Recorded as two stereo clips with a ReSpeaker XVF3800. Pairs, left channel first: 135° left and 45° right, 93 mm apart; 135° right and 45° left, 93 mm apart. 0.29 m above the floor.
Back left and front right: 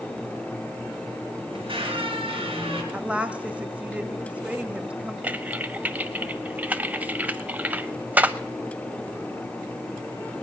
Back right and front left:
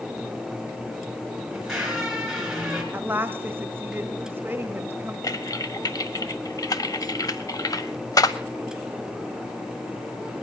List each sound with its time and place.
1.5 s a squeak: 40° right, 2.5 m
2.9 s a woman speaking: 15° left, 0.9 m
5.2 s typing on a keyboard: 110° right, 0.5 m